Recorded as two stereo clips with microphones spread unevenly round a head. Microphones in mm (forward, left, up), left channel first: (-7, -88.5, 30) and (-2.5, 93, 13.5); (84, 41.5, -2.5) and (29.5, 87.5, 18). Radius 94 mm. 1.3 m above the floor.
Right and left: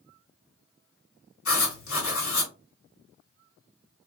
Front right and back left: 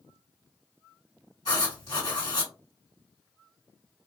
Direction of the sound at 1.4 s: 85° right.